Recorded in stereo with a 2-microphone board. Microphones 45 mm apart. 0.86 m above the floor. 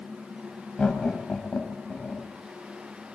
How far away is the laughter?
About 5.5 m.